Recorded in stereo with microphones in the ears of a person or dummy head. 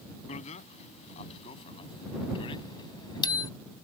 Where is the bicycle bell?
40° left (ahead or behind); by 3.5 s 20° left (ahead or behind).